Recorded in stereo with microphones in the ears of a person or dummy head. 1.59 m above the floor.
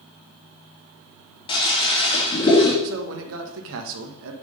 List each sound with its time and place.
1.5 s a toilet flushing: 25° left (ahead or behind), 1.6 m
2.8 s a man speaking: 75° right (ahead or behind), 1.5 m